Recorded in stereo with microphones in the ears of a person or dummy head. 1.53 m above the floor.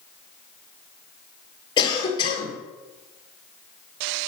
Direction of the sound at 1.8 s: 25° left (ahead or behind).